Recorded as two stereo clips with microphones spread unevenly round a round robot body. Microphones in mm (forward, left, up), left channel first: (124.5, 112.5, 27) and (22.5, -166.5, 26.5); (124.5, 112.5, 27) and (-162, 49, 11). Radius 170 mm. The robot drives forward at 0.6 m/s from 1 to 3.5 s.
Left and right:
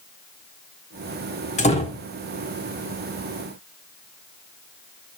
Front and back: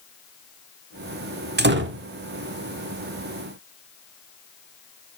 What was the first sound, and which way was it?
A door slam, 140° left.